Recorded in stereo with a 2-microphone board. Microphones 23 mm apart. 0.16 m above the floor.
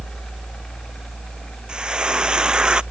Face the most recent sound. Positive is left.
turn(degrees=-40)  # may be behind; listen again after turning